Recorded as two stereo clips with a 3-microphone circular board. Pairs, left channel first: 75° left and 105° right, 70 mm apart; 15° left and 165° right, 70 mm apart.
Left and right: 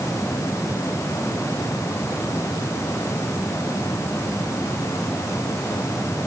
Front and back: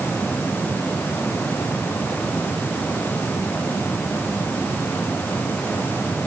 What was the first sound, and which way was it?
Only background noise.